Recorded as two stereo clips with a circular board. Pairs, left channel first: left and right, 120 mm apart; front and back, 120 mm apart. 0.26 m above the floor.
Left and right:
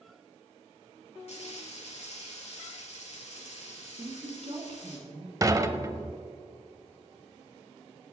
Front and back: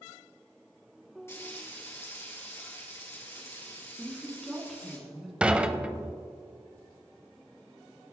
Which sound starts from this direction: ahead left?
Frying, at 1.3 s.